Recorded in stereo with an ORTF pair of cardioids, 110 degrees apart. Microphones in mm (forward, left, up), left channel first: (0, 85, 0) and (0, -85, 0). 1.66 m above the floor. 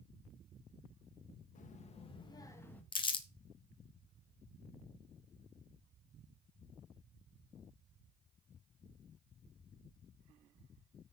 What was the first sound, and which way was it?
A child speaking, 50° left.